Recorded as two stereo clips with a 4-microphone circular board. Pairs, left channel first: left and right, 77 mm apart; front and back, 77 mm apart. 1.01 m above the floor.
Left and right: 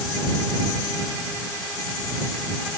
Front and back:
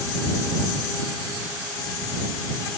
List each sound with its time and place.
Only background noise.